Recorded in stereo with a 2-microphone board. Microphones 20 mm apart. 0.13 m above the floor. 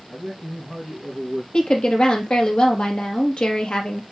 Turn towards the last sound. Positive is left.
turn(degrees=55)  # may be behind; listen again after turning